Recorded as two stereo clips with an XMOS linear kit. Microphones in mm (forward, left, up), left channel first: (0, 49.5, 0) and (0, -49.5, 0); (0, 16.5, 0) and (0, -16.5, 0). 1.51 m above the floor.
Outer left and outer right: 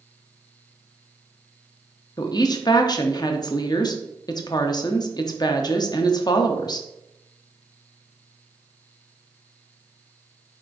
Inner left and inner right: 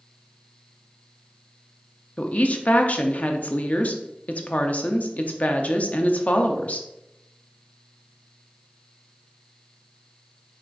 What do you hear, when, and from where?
2.2 s a woman speaking: 45° left (ahead or behind), 0.5 m